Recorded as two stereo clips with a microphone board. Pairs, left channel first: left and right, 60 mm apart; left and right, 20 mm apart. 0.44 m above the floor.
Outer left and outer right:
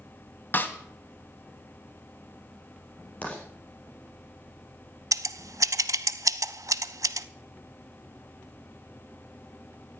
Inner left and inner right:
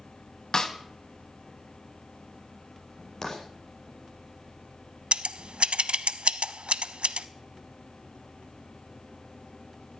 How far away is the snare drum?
About 1.4 m.